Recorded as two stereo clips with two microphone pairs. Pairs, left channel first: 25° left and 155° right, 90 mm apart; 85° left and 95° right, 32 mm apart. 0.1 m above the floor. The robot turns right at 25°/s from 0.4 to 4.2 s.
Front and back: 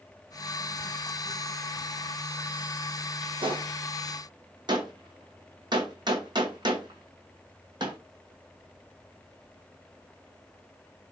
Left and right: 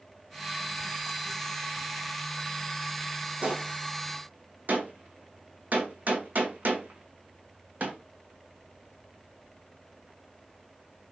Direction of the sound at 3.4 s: 140° right.